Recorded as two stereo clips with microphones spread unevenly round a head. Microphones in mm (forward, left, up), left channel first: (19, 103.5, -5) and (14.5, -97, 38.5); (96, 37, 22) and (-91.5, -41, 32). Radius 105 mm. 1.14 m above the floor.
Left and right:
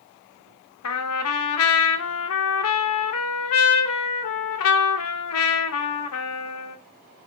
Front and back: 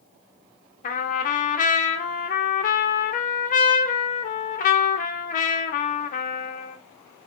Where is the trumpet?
75° left, 0.7 m.